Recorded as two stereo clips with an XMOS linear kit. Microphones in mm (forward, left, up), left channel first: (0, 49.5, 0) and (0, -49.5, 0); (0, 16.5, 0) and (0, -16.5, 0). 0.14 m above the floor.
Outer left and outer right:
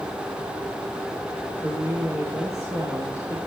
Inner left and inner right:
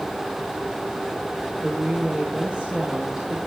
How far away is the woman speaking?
About 3.5 m.